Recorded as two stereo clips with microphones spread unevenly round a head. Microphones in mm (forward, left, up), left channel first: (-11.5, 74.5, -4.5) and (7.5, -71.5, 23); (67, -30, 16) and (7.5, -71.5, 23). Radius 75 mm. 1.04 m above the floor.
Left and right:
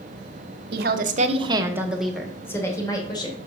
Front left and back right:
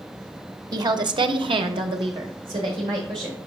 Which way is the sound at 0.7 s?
110° right.